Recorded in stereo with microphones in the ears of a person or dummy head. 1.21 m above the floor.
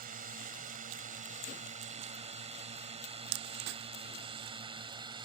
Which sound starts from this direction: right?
A drone, at 0.0 s.